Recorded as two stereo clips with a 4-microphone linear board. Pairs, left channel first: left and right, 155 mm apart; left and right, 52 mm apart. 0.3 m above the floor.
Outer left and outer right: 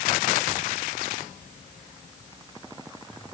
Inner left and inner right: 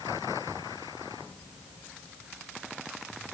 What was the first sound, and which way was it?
Only background noise.